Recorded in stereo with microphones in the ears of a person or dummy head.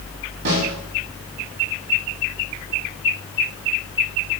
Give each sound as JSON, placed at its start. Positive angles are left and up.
{"t": 0.5, "sound": "a snare drum", "side_deg": -70, "distance_m": 3.5}